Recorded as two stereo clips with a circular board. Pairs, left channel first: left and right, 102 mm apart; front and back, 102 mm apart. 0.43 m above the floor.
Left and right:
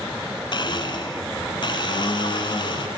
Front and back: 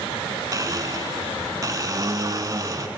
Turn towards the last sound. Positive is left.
turn(degrees=125)